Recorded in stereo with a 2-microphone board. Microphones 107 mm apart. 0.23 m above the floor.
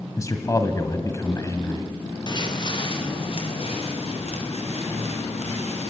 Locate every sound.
0.2 s a man speaking: 30° left (ahead or behind), 1.6 m
2.3 s footsteps: 40° left (ahead or behind), 4 m; by 5.9 s 75° left (ahead or behind), 7.5 m